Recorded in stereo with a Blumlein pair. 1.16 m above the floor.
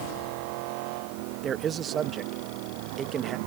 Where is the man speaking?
25° right.